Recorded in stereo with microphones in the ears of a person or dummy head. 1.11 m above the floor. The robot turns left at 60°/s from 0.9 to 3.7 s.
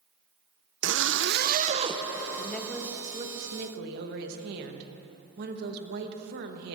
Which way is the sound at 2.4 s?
20° left.